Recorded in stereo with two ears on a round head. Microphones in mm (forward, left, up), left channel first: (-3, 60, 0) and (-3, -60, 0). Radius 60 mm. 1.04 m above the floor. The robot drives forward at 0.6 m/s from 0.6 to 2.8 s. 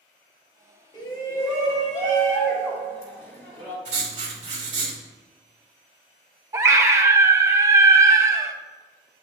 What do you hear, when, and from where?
0.9 s a shout: 30° left (ahead or behind), 1.7 m; by 3.8 s 20° left (ahead or behind), 2.5 m
3.9 s writing: 50° right (ahead or behind), 2.5 m
6.5 s a scream: 20° right (ahead or behind), 0.6 m